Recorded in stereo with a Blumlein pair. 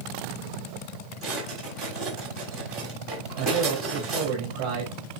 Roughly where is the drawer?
Ahead.